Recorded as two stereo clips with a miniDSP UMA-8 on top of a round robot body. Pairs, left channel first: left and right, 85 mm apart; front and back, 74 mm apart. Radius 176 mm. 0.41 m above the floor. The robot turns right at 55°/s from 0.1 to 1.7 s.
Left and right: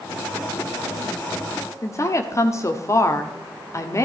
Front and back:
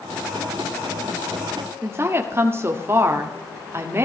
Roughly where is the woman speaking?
Behind left.